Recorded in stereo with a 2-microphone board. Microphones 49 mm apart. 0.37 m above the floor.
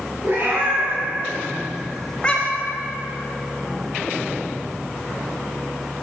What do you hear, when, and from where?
0.2 s a cat meowing: 50° right (ahead or behind), 2.5 m; by 2.8 s 55° left (ahead or behind), 0.9 m